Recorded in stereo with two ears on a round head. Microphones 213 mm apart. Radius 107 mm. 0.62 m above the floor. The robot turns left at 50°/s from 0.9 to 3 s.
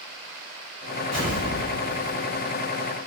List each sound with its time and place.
1.1 s an explosion: 175° left, 1.1 m; by 2.4 s 110° left, 1.1 m